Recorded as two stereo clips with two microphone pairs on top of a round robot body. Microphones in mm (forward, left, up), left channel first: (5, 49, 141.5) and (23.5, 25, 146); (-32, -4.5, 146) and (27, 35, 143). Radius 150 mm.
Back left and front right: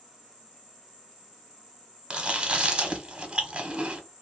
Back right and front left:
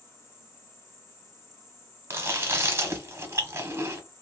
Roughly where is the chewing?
Ahead.